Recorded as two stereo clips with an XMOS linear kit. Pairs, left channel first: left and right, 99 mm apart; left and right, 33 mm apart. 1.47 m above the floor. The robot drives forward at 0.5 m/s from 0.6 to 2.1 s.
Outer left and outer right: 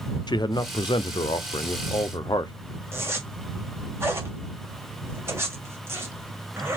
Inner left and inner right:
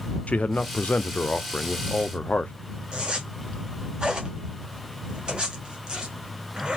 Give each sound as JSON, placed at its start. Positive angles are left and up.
{"t": 0.3, "sound": "a man speaking", "side_deg": 45, "distance_m": 0.6}
{"t": 2.9, "sound": "a zipper", "side_deg": -25, "distance_m": 1.7}